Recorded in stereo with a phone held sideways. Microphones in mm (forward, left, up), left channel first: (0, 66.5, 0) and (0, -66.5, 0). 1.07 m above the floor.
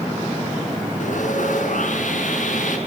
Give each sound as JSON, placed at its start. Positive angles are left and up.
{"t": 1.0, "sound": "sawing", "side_deg": 65, "distance_m": 6.0}